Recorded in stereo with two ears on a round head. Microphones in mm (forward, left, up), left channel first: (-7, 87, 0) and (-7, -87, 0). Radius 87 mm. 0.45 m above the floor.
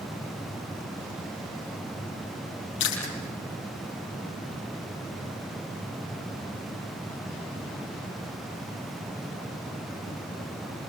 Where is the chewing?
65° left (ahead or behind), 5.5 m.